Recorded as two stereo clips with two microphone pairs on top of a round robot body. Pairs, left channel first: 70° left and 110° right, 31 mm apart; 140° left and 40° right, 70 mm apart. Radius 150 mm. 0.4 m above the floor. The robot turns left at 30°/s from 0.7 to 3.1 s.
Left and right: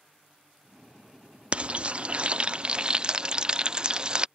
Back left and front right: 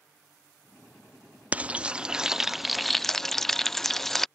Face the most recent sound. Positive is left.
turn(degrees=-155)